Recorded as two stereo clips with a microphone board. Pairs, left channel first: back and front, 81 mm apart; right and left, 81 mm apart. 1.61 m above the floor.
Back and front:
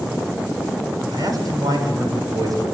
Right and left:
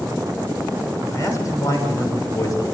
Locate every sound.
1.1 s a man speaking: 40° right, 7 m